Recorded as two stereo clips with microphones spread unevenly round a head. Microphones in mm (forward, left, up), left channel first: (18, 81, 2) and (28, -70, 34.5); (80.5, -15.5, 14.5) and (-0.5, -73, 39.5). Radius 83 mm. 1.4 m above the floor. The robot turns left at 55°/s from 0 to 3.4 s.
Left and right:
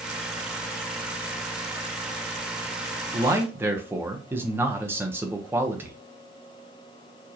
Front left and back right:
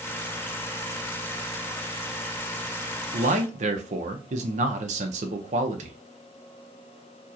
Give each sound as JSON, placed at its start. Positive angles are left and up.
{"t": 3.1, "sound": "a man speaking", "azimuth_deg": -150, "distance_m": 0.7}